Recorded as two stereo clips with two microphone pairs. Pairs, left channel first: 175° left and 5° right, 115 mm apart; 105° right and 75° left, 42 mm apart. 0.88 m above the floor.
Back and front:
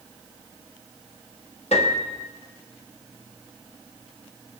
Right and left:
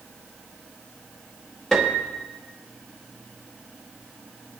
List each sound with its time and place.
1.7 s a piano: 175° left, 1.7 m